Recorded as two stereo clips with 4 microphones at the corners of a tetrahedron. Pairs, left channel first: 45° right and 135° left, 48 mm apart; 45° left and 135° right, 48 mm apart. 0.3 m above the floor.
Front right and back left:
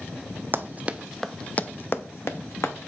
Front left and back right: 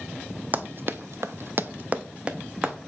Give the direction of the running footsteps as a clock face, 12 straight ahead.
6 o'clock.